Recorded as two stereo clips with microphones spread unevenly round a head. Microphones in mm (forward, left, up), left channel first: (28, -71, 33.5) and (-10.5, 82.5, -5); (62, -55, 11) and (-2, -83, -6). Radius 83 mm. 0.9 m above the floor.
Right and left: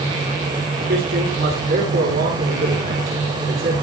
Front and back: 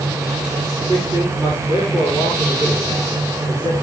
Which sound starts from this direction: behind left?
A man speaking, at 0.8 s.